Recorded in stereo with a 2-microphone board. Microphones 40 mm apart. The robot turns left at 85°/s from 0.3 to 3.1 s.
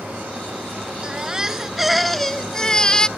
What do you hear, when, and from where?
1.0 s a baby crying: 20° right (ahead or behind); by 3.1 s 20° left (ahead or behind)